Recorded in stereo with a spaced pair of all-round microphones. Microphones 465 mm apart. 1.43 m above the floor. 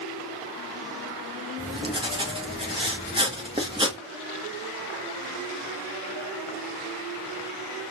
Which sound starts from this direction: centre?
Writing, at 1.6 s.